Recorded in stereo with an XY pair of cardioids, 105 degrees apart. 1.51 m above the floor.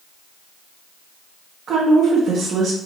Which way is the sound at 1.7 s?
60° right.